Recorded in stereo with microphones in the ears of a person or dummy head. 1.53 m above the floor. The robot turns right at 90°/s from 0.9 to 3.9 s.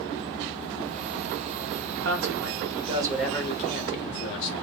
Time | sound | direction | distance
2.0 | a man speaking | 110° right | 1.4 m